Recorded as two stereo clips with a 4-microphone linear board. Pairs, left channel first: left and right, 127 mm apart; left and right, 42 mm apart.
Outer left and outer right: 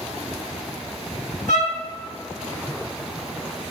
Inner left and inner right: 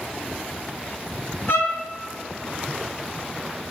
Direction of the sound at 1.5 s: 75° left (ahead or behind).